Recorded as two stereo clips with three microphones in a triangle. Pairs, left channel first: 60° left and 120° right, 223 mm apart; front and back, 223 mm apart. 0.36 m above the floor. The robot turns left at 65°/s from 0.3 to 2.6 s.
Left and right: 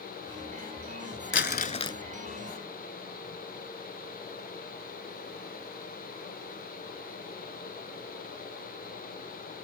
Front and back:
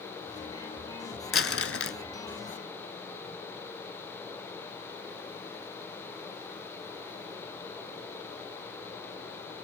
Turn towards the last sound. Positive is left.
turn(degrees=-55)